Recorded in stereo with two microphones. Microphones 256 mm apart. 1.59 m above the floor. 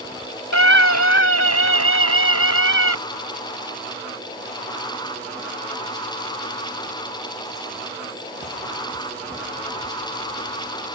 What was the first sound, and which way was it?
A scream, 85° left.